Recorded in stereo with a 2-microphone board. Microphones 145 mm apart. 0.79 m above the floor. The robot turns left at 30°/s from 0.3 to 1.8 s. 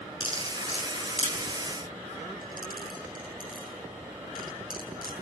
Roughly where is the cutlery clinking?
Left.